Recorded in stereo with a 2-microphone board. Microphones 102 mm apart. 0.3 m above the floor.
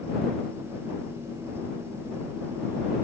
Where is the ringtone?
I don't hear a ringtone.